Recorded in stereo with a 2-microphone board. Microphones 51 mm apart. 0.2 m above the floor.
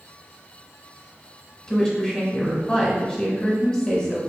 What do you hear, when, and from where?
1.7 s a woman speaking: 15° left (ahead or behind), 1.2 m